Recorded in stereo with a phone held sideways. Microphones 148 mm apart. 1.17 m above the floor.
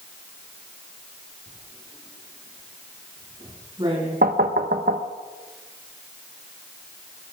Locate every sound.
1.5 s writing: 35° right (ahead or behind), 4.5 m
4.2 s knocking: 80° right, 0.8 m